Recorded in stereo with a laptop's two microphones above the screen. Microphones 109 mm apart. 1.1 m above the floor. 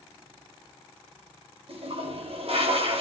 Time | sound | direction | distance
1.7 | a toilet flushing | 65° right (ahead or behind) | 3.5 m